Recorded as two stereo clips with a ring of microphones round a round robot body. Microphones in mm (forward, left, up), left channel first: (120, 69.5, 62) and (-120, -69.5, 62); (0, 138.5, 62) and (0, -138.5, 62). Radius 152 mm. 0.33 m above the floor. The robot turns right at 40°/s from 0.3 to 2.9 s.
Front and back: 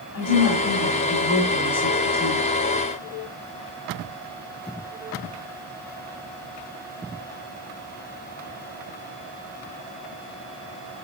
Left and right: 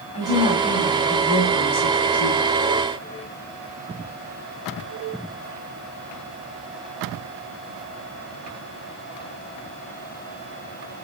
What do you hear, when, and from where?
0.1 s a woman speaking: 25° left, 2.5 m; by 2.5 s 115° left, 2.5 m